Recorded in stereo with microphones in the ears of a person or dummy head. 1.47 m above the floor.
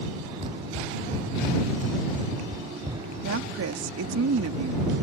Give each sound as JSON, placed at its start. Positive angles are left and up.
{"t": 0.4, "sound": "running footsteps", "side_deg": -35}
{"t": 3.2, "sound": "a woman speaking", "side_deg": -70}